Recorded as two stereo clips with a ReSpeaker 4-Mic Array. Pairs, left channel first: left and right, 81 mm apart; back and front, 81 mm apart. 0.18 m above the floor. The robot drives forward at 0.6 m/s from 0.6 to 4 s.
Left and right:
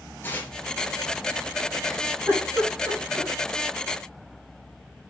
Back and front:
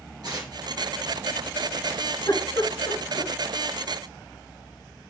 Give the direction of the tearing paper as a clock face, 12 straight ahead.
11 o'clock.